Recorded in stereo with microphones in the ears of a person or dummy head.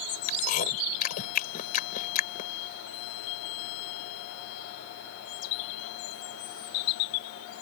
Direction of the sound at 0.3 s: 45° left (ahead or behind).